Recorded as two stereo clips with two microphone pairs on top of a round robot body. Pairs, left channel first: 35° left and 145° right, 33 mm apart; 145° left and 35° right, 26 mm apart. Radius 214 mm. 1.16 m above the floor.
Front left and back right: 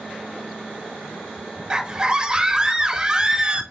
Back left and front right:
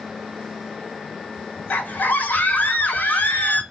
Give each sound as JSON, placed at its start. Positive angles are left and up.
{"t": 1.7, "sound": "a scream", "azimuth_deg": 150, "distance_m": 1.8}